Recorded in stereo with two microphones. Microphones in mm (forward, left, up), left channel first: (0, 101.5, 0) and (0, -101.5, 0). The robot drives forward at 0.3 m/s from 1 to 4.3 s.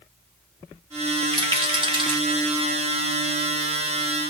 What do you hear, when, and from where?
1.3 s a rattle: 25° right (ahead or behind), 1.5 m; by 2.3 s 20° right (ahead or behind), 1.6 m